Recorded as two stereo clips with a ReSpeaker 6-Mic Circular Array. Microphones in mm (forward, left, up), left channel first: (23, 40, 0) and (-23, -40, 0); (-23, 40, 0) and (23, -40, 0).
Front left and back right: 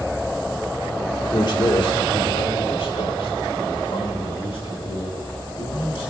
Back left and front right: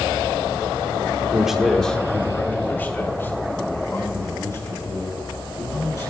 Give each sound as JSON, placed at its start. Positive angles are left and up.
{"t": 1.3, "sound": "a man speaking", "azimuth_deg": 20, "distance_m": 1.5}